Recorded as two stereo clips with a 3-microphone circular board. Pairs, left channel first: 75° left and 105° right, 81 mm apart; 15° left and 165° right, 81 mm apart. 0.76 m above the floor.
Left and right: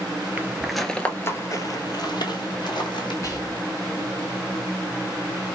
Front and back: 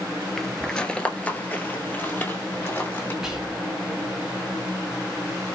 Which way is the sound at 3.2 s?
110° left.